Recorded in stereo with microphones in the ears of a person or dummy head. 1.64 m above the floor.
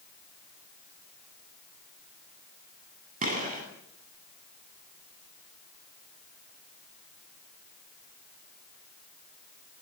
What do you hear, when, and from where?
3.2 s a gunshot: 40° right (ahead or behind), 8.5 m